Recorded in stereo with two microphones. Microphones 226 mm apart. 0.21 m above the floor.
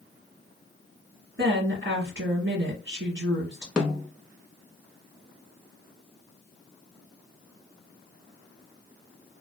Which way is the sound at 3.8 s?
5° right (ahead or behind).